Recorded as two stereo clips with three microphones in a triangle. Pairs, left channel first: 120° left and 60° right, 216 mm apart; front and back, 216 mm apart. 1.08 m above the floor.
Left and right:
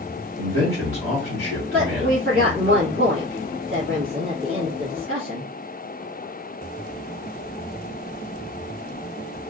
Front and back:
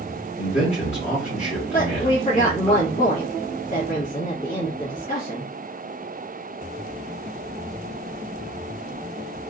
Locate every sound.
0.4 s a man speaking: 65° right, 1.5 m
1.7 s a woman speaking: 55° right, 1.2 m